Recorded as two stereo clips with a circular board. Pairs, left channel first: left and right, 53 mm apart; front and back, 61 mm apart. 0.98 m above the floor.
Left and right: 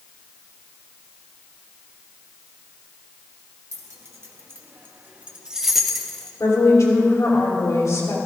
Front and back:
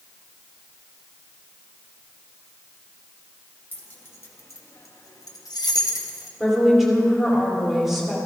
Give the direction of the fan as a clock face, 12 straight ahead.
I don't hear a fan.